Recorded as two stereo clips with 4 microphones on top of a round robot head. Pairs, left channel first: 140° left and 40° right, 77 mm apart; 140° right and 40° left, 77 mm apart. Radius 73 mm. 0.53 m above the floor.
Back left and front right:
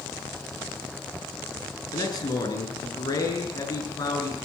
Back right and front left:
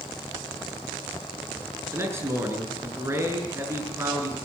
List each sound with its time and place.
1.9 s a man speaking: 100° left, 6.5 m